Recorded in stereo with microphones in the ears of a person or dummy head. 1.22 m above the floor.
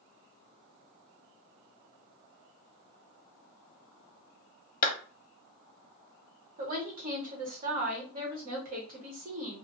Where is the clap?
60° left (ahead or behind), 0.6 m.